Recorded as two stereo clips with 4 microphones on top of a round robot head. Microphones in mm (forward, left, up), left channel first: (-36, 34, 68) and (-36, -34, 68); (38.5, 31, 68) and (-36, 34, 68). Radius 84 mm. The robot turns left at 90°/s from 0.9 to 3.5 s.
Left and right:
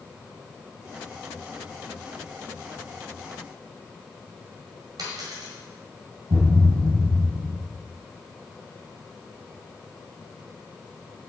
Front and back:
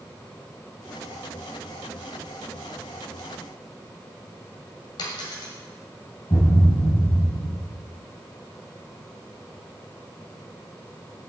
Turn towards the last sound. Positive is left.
turn(degrees=-50)